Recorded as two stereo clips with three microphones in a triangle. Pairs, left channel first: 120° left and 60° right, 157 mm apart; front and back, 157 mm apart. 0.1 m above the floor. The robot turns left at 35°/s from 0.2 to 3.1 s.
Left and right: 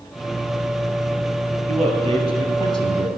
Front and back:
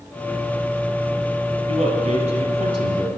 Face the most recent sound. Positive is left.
turn(degrees=140)